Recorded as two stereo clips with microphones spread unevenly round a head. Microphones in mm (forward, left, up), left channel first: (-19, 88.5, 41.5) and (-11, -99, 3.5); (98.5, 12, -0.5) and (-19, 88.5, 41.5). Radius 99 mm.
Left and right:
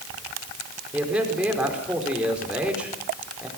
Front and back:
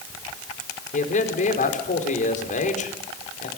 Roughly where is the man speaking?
Ahead.